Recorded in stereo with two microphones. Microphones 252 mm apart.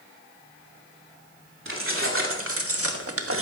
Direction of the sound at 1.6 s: 55° right (ahead or behind).